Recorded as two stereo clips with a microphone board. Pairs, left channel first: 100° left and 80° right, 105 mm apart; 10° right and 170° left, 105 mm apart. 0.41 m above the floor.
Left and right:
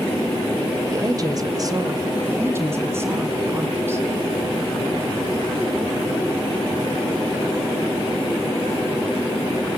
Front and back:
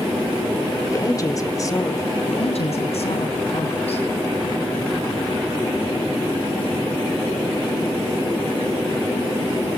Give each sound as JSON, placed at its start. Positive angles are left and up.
{"t": 0.9, "sound": "a woman speaking", "azimuth_deg": -50, "distance_m": 1.7}
{"t": 2.2, "sound": "a woman speaking", "azimuth_deg": -15, "distance_m": 2.5}